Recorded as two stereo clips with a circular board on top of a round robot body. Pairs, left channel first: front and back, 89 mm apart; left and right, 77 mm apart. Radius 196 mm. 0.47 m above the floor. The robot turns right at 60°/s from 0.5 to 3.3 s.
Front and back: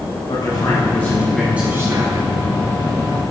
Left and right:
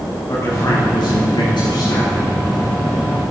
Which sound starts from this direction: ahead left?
A man speaking, at 0.3 s.